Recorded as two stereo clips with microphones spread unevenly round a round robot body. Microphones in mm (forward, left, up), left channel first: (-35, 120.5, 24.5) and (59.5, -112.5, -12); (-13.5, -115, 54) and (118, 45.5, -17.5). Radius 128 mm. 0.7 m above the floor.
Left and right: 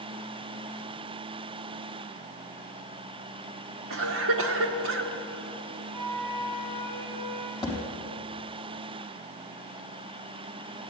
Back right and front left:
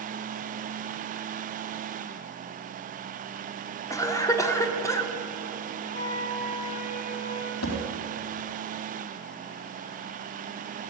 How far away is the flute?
About 2.5 m.